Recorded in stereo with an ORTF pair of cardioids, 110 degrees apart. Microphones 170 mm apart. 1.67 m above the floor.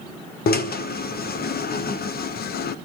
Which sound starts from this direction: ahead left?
A drill, at 0.5 s.